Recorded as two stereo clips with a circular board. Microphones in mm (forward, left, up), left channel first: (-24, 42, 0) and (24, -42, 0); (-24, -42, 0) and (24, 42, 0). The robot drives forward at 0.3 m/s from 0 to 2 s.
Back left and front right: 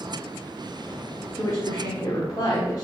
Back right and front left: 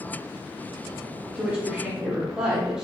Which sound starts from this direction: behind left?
A woman speaking, at 1.4 s.